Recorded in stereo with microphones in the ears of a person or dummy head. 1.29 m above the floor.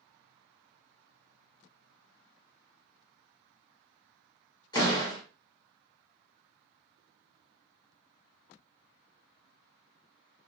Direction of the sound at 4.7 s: 20° left (ahead or behind).